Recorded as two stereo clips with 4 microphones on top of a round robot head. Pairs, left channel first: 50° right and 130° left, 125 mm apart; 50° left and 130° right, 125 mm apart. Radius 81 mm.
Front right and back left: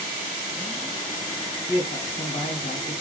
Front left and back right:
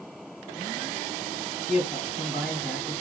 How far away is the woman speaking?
About 2.5 m.